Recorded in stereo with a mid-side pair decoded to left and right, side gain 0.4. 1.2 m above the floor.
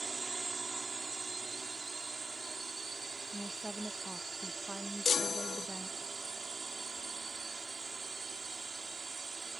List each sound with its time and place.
0.0 s a drone: 40° right
3.3 s a woman speaking: 15° right
5.0 s a chime: 40° left